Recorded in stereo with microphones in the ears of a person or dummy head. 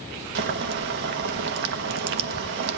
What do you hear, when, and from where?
0.3 s boiling: 55° right (ahead or behind), 1.2 m